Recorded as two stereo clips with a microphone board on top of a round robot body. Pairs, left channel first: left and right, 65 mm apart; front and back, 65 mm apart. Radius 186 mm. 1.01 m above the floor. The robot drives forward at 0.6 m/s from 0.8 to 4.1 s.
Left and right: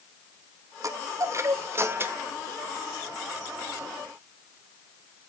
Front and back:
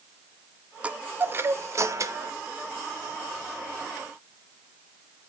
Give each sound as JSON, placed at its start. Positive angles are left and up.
{"t": 0.8, "sound": "a chime", "azimuth_deg": -110, "distance_m": 1.0}